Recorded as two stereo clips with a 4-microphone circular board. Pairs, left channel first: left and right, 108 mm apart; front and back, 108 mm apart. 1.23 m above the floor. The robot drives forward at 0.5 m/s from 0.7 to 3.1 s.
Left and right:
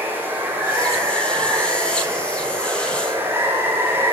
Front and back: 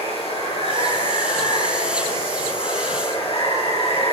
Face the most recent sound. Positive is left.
turn(degrees=-25)